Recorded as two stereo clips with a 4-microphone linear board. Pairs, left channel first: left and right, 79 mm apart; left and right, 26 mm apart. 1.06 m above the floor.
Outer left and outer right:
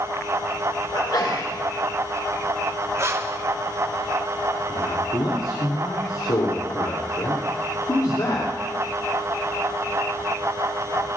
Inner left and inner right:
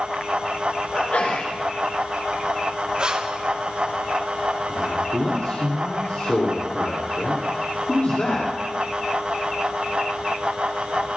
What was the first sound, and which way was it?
A sneeze, 65° left (ahead or behind).